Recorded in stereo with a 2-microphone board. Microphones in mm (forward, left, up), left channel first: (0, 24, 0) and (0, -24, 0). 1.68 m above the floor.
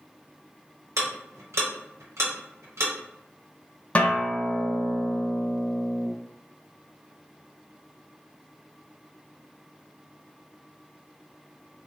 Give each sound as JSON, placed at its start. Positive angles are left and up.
{"t": 1.0, "sound": "ticking", "side_deg": -80, "distance_m": 1.1}
{"t": 4.0, "sound": "a guitar", "side_deg": 25, "distance_m": 0.6}